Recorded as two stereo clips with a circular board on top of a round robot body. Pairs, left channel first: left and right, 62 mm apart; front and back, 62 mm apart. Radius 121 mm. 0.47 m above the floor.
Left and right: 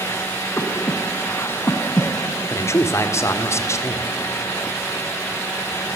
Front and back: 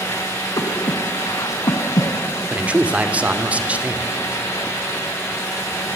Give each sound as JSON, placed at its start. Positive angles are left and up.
{"t": 0.6, "sound": "breathing", "azimuth_deg": 35, "distance_m": 2.5}
{"t": 2.5, "sound": "a man speaking", "azimuth_deg": 115, "distance_m": 2.0}